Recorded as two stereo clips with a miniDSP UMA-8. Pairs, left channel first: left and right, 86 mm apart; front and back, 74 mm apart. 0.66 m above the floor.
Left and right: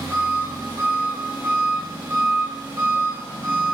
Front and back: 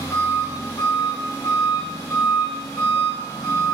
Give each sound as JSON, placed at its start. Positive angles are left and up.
{"t": 0.0, "sound": "an engine running", "azimuth_deg": -30, "distance_m": 1.4}